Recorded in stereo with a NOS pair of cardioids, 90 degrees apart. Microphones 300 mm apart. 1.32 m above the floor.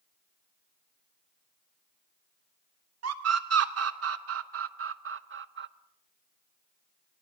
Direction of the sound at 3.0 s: 55° right.